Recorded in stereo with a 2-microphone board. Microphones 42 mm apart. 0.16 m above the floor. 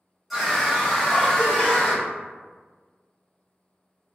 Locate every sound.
0.3 s a scream: 5° right (ahead or behind), 1.3 m; by 2.1 s 20° left (ahead or behind), 1.2 m